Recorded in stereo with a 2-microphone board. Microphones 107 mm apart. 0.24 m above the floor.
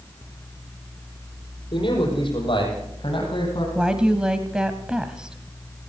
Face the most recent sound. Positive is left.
turn(degrees=-10)  # may be behind; listen again after turning